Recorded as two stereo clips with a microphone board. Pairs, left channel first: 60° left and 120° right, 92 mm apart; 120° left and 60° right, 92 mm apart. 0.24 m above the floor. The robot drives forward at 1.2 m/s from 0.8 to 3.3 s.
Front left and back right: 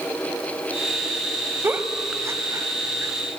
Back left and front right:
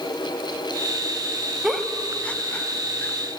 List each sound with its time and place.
1.6 s a giggle: 140° right, 0.9 m; by 3.1 s 175° right, 2 m